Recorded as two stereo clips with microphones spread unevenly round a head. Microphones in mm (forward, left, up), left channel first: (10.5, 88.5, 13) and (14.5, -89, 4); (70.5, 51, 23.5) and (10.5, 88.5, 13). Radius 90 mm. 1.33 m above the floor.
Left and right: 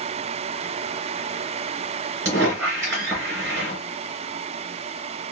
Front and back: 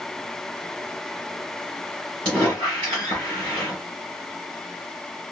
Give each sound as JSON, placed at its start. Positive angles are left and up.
{"t": 2.2, "sound": "a squeak", "azimuth_deg": -165, "distance_m": 3.0}